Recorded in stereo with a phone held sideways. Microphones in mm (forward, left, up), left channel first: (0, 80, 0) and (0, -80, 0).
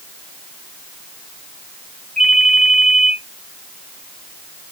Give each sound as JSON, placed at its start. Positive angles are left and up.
{"t": 2.2, "sound": "a ringtone", "side_deg": 5, "distance_m": 3.5}